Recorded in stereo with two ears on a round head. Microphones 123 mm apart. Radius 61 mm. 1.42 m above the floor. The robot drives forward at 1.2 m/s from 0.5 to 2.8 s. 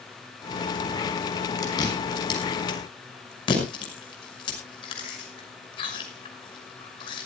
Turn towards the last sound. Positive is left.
turn(degrees=35)  # may be behind; listen again after turning